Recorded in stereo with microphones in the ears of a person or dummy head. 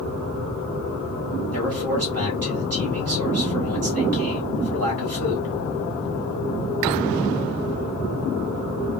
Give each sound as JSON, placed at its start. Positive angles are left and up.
{"t": 1.5, "sound": "a man speaking", "side_deg": -70, "distance_m": 1.8}